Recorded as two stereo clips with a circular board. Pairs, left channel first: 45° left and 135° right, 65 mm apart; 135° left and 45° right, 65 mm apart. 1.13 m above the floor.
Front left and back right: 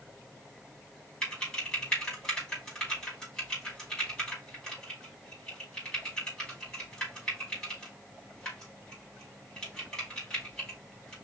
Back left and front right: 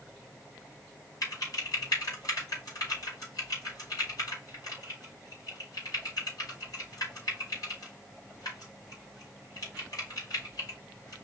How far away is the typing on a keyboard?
About 4 m.